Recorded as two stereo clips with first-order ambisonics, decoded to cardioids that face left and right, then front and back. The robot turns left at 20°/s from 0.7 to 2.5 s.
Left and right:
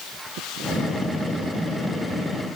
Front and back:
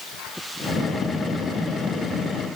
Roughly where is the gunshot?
I don't hear a gunshot.